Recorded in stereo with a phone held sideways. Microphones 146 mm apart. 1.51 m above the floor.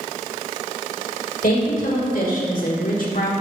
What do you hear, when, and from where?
1.4 s a woman speaking: 75° left (ahead or behind), 2 m; by 3.3 s 65° left (ahead or behind), 1.1 m